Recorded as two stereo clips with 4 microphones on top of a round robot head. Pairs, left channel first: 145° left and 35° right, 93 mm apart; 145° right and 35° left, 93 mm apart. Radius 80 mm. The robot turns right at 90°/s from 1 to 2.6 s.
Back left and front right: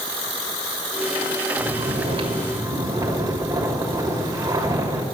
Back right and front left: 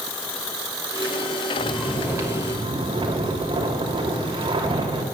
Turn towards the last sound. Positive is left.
turn(degrees=15)